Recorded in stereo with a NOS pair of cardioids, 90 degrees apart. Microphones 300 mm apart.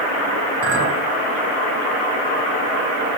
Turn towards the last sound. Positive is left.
turn(degrees=-50)